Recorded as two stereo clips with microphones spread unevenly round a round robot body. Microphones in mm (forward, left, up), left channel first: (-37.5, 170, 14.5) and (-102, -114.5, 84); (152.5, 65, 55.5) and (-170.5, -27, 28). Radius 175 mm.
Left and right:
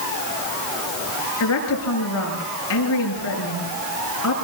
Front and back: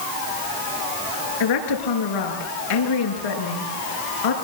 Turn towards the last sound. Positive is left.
turn(degrees=30)